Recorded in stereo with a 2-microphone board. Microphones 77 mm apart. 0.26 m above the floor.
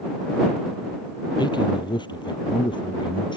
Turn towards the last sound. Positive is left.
turn(degrees=80)